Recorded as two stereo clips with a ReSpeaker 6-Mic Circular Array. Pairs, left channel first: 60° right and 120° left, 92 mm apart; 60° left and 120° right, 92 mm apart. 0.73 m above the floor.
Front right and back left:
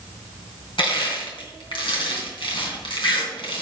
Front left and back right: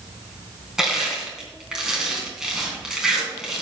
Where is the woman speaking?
No woman speaking in this recording.